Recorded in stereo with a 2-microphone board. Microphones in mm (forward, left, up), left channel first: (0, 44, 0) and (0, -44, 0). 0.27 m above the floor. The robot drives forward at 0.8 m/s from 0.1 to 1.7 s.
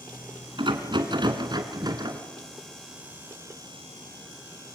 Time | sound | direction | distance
0.6 | a rattle | 65° right (ahead or behind) | 1.9 m